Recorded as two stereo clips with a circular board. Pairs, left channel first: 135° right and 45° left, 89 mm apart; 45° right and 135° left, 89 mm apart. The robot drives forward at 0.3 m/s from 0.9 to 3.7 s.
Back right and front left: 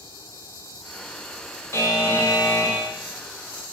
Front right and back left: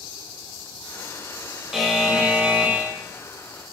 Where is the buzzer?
140° right, 0.6 m; by 2.9 s 165° right, 0.8 m.